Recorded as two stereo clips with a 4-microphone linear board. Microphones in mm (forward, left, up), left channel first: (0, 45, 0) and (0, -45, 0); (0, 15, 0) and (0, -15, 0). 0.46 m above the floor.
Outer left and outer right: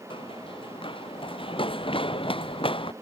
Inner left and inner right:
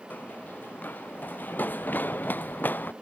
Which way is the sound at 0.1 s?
75° left (ahead or behind).